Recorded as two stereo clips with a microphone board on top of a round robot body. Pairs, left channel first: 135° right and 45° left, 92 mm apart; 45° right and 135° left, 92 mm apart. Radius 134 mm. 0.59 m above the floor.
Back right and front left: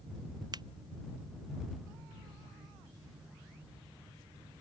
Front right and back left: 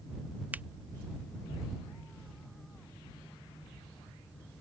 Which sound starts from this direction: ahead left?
A finger snap, at 0.5 s.